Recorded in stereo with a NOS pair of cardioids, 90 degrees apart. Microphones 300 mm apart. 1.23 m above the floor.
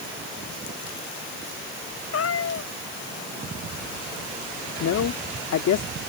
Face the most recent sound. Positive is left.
turn(degrees=60)